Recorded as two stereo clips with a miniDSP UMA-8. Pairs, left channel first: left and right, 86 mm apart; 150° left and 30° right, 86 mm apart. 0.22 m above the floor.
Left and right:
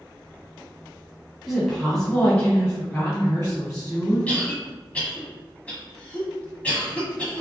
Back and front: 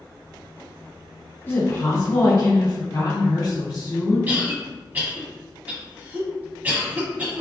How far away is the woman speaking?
About 1.3 m.